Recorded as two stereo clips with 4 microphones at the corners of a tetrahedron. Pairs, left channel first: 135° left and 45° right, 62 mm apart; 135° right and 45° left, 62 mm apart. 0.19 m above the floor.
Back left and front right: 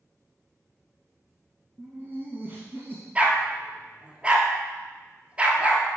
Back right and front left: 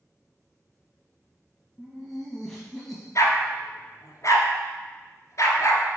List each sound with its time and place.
1.8 s laughter: 50° right, 1.2 m
3.1 s a dog barking: 110° right, 1.1 m